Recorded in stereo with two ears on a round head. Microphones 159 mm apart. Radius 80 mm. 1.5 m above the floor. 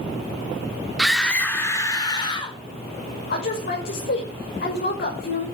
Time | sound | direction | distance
1.0 | a scream | centre (ahead or behind) | 3.5 m
3.3 | a woman speaking | 55° left (ahead or behind) | 6 m